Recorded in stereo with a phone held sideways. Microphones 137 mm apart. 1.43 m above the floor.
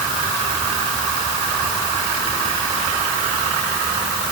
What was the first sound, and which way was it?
Only background noise.